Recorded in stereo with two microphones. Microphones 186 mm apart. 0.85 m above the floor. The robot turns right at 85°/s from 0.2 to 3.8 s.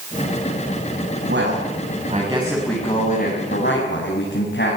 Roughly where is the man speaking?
Right.